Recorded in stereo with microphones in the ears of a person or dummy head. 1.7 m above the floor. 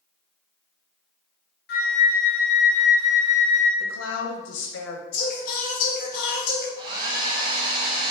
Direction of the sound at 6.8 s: 30° right (ahead or behind).